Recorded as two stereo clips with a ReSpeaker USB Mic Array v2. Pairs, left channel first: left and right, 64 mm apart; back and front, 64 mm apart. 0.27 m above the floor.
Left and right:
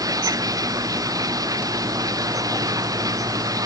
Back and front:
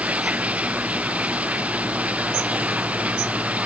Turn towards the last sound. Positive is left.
turn(degrees=-70)